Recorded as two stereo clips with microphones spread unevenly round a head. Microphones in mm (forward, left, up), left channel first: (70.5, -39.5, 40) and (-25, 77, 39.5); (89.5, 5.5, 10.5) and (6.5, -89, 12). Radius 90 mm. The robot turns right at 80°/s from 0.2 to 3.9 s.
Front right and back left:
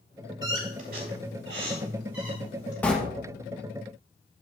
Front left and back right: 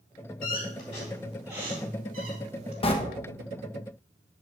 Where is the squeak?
70° left, 3 m; by 2.7 s 105° right, 3 m.